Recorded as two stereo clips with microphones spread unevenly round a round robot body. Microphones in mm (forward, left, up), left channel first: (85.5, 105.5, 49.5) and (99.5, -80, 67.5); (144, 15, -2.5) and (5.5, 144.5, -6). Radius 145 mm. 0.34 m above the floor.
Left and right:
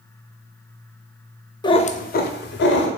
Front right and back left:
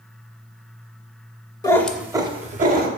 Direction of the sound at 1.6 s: 30° left.